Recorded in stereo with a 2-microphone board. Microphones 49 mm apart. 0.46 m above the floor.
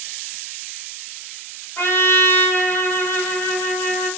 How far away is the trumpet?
About 1.0 m.